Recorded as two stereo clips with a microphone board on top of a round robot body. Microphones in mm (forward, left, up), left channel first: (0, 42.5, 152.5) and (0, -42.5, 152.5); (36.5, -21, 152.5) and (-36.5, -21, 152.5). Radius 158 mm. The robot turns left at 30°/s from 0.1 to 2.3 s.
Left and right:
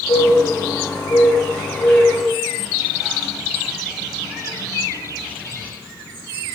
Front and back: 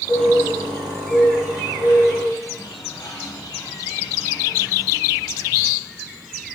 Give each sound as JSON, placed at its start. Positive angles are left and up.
{"t": 0.1, "sound": "a bird", "azimuth_deg": 60, "distance_m": 1.0}